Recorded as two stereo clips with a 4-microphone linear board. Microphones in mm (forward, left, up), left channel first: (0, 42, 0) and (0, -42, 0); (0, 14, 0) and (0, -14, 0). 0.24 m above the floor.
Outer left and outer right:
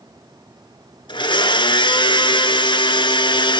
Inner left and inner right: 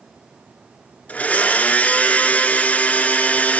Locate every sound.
1.1 s a blender: 75° left (ahead or behind), 1.3 m